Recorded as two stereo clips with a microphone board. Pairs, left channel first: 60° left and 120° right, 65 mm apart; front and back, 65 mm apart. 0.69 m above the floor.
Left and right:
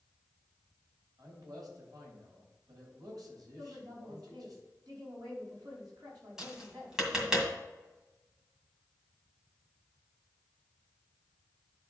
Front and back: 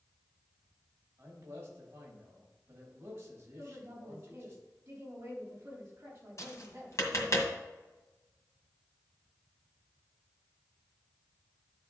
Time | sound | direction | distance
1.2 | a man speaking | 130° right | 3.5 m
3.6 | a woman speaking | 130° right | 4 m
6.4 | tapping | 40° right | 1.8 m